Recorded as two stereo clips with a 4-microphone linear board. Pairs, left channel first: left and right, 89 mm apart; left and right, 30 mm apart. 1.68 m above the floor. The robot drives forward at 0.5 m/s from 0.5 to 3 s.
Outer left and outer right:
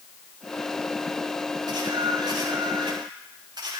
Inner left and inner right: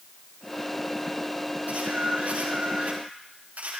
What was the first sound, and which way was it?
A camera shutter, 50° right (ahead or behind).